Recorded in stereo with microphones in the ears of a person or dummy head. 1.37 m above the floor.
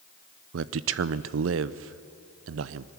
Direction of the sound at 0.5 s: 75° right (ahead or behind).